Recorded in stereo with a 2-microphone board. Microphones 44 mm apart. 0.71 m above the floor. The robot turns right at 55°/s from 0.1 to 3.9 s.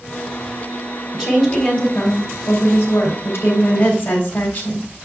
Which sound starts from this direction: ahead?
A woman speaking, at 1.1 s.